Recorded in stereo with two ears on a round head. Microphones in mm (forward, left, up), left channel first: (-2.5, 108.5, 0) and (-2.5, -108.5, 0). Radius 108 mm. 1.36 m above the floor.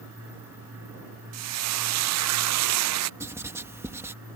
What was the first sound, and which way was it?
Frying, 70° right (ahead or behind).